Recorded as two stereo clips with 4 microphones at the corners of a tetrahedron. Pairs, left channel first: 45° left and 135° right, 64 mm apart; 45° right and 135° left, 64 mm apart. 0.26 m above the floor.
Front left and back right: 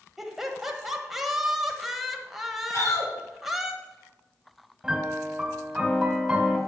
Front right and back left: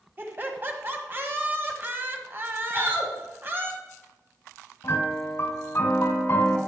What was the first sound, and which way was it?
Laughter, 140° left.